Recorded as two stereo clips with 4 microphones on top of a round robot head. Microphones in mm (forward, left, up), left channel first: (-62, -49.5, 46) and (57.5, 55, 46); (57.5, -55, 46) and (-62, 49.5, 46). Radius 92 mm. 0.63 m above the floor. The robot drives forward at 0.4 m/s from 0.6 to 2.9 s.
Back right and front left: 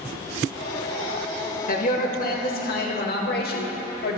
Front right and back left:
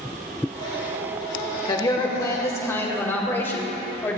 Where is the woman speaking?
105° right, 2 m; by 4.2 s 115° right, 2.5 m.